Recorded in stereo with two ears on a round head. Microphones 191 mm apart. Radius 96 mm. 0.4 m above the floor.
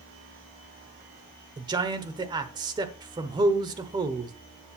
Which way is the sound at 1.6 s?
20° right (ahead or behind).